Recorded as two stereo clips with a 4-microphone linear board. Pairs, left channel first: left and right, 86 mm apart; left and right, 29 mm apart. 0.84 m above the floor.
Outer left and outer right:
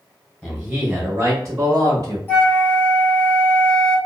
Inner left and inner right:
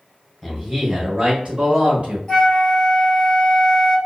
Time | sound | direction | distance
0.4 | a man speaking | 5° right (ahead or behind) | 0.9 m
2.3 | a flute | 25° left (ahead or behind) | 1.3 m